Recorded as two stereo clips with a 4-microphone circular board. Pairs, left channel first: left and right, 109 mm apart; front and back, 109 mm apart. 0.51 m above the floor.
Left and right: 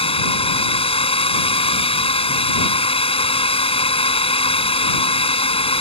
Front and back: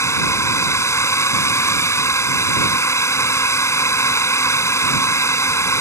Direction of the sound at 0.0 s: 65° left.